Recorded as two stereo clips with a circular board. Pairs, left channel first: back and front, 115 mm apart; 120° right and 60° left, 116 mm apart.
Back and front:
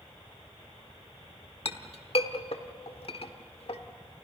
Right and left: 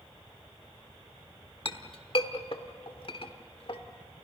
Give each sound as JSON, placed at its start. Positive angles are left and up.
{"t": 1.6, "sound": "a clink", "azimuth_deg": -155, "distance_m": 1.1}